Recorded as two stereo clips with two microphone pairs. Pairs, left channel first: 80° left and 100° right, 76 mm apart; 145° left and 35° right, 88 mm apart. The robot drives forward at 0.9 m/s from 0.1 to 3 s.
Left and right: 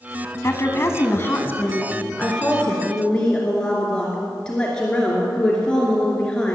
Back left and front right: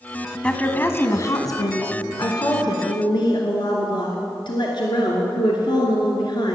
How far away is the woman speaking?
About 1.2 m.